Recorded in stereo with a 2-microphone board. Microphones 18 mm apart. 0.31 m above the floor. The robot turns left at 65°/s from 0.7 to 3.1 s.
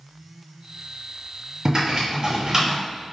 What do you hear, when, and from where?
1.6 s typing on a keyboard: 45° right (ahead or behind), 2.0 m; by 2.8 s 30° right (ahead or behind), 2.0 m